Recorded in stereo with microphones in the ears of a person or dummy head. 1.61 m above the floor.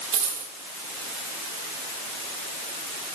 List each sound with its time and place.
0.1 s a dropped coin: 45° right (ahead or behind), 2.5 m